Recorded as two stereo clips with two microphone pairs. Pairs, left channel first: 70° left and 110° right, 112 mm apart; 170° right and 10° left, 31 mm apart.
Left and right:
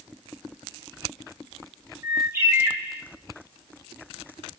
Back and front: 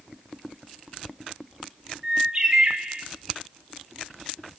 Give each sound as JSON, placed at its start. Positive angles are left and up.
{"t": 2.0, "sound": "a bird", "azimuth_deg": -50, "distance_m": 1.1}